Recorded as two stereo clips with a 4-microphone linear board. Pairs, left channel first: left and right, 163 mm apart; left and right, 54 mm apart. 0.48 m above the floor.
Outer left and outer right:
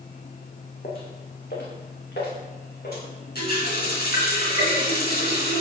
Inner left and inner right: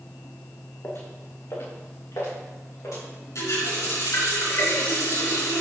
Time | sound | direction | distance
0.8 | footsteps | 60° left (ahead or behind) | 1.9 m
3.4 | a running tap | 75° left (ahead or behind) | 4 m